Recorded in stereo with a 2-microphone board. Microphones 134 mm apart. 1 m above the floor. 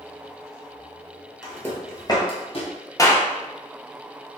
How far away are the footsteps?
About 1.2 m.